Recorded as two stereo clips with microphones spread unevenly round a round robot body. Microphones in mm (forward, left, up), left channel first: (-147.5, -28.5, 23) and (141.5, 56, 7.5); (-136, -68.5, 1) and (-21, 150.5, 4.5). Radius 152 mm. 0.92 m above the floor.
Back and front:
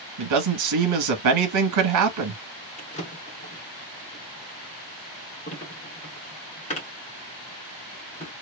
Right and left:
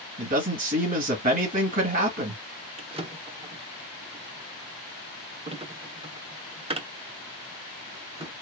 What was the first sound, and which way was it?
A man speaking, straight ahead.